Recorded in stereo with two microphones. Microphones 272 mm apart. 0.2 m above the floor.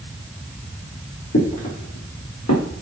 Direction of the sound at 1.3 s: 65° left (ahead or behind).